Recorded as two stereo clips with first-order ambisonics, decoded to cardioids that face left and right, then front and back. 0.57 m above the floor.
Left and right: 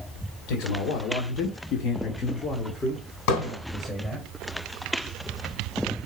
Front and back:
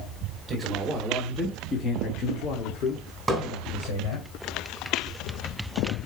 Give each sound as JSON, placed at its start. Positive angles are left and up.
{"t": 0.5, "sound": "a man speaking", "azimuth_deg": 110, "distance_m": 1.7}
{"t": 3.3, "sound": "hammering", "azimuth_deg": 100, "distance_m": 3.5}